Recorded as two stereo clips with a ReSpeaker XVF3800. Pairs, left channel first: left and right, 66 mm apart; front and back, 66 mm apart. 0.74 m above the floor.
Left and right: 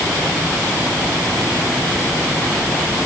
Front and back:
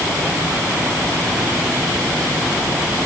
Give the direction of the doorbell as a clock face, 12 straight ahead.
I don't hear a doorbell.